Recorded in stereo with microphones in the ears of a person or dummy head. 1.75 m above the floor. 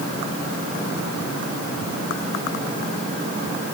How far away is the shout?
No shout in this recording.